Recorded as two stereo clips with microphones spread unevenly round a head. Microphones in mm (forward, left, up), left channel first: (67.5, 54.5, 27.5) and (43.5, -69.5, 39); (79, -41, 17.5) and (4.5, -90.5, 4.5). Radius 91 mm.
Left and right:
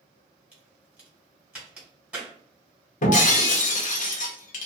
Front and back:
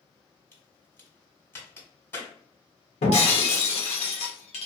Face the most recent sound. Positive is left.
turn(degrees=55)